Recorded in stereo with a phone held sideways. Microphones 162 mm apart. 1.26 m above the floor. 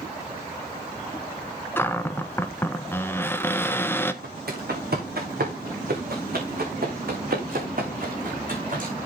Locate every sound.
1.8 s a cupboard door: 15° left (ahead or behind), 0.7 m
4.2 s footsteps: 75° right (ahead or behind), 4.5 m; by 8.9 s 55° right (ahead or behind), 4 m